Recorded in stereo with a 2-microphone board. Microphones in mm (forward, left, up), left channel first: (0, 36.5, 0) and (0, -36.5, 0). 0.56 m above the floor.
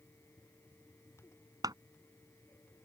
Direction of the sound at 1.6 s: 65° right (ahead or behind).